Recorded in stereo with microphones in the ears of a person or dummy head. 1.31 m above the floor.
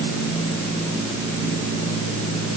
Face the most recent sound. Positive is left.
No sound to turn to.